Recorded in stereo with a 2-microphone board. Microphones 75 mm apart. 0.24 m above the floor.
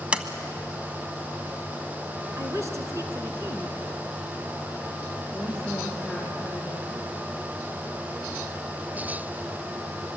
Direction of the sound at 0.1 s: 15° right (ahead or behind).